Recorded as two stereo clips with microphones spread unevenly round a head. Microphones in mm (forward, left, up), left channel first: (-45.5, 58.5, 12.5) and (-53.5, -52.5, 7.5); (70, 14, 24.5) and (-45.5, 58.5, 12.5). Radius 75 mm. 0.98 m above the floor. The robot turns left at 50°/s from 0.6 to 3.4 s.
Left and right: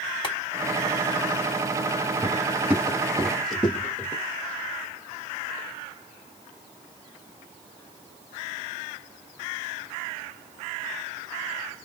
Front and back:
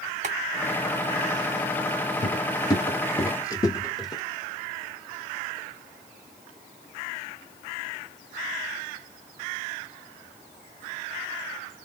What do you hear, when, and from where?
0.2 s boiling: 125° left, 2.0 m
2.2 s footsteps: 25° right, 1.1 m; by 4.2 s 25° left, 1.3 m